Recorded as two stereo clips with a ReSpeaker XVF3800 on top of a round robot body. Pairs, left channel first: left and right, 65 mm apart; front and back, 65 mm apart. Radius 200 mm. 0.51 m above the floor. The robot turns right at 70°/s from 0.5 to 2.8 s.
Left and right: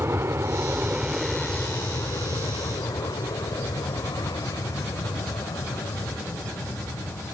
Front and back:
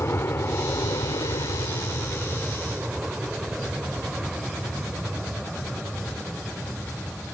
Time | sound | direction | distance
0.0 | an aircraft | 45° right | ?